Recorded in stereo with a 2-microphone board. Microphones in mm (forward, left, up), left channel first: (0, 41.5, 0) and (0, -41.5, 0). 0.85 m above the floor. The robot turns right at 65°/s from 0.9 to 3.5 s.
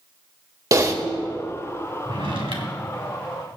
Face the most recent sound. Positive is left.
turn(degrees=-25)